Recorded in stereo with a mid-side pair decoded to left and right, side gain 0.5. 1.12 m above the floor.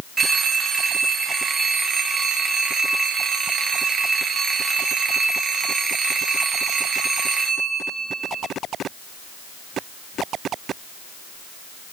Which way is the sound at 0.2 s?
40° right.